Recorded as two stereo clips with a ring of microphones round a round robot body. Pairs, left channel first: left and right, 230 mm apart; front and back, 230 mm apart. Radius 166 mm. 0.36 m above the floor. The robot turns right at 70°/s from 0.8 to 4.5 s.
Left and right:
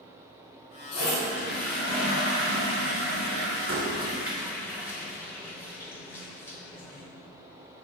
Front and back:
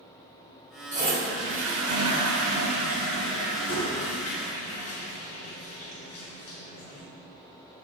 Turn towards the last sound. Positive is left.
turn(degrees=10)